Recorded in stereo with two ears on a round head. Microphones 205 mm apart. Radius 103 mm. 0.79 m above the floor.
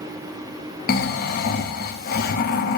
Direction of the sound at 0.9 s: 45° left (ahead or behind).